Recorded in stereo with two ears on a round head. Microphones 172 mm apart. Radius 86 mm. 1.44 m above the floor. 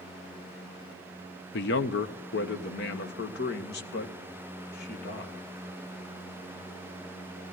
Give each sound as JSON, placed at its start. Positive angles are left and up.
{"t": 1.5, "sound": "a man speaking", "side_deg": 60, "distance_m": 0.9}